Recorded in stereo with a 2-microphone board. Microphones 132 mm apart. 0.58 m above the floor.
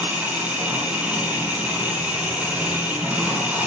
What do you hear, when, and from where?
0.0 s an engine running: 10° right (ahead or behind), 6 m